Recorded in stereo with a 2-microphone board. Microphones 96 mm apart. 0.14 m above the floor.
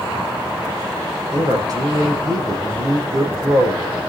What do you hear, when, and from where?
1.3 s a man speaking: 40° right (ahead or behind), 6 m